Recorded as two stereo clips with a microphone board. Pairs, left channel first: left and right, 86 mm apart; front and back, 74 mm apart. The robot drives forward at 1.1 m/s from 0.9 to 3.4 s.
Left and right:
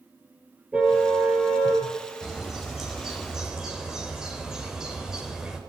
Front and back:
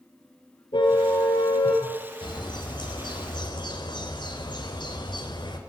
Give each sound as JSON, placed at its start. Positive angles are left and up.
{"t": 0.7, "sound": "a car horn", "azimuth_deg": -15, "distance_m": 7.5}
{"t": 2.2, "sound": "a bird", "azimuth_deg": -5, "distance_m": 5.0}